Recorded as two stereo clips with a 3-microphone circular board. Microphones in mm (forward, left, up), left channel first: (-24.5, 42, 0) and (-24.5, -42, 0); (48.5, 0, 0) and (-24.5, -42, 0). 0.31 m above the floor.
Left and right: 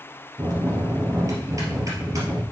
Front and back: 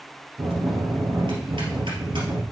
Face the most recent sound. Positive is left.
turn(degrees=-140)